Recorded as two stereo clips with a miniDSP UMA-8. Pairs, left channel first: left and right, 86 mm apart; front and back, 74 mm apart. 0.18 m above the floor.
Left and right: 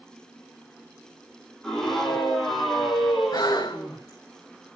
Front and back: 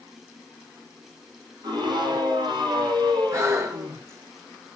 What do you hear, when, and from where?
1.6 s a scream: 175° left, 6.5 m; by 4.0 s 175° right, 6 m
3.3 s breathing: 130° left, 5 m